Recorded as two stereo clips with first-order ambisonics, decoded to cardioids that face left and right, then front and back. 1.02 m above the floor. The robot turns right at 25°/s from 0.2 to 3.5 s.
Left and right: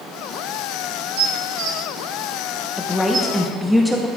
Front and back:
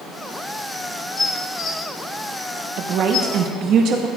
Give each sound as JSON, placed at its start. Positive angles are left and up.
{"t": 1.2, "sound": "dishes clattering", "azimuth_deg": -75, "distance_m": 1.1}
{"t": 2.8, "sound": "a woman speaking", "azimuth_deg": 165, "distance_m": 0.8}